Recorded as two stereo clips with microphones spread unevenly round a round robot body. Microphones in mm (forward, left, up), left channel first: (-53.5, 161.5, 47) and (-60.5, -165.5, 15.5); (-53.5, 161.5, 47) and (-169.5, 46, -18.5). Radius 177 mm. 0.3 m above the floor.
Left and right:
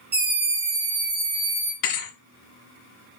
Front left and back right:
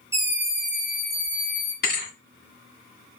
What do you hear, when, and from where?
0.1 s a scream: 120° right, 1.2 m; by 1.7 s 50° right, 1.8 m
1.8 s a thud: 70° left, 1.7 m